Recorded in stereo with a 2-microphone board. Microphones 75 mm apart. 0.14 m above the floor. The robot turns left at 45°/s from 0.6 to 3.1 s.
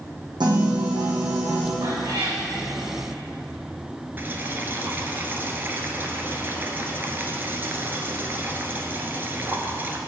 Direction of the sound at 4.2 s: 30° right (ahead or behind).